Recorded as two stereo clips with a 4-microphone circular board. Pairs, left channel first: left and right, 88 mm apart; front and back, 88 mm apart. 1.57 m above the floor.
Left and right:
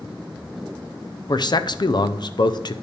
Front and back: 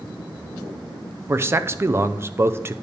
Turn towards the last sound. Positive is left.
turn(degrees=120)